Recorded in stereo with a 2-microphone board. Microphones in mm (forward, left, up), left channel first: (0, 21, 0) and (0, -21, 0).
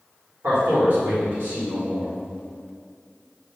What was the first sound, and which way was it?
A man speaking, 55° right (ahead or behind).